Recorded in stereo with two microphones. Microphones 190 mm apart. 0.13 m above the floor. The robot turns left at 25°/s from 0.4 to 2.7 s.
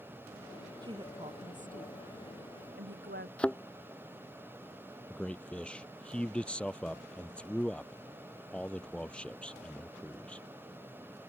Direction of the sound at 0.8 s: 20° right (ahead or behind).